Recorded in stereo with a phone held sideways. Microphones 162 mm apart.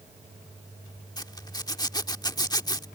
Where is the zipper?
25° left (ahead or behind).